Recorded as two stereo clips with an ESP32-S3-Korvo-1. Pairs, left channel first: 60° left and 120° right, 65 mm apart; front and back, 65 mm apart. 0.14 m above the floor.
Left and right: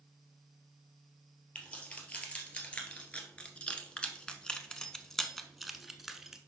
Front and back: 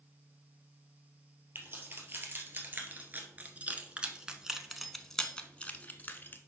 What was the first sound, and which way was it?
Keys jangling, 130° left.